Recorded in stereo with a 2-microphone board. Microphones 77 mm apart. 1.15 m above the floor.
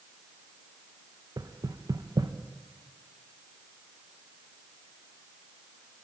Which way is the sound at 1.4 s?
60° right (ahead or behind).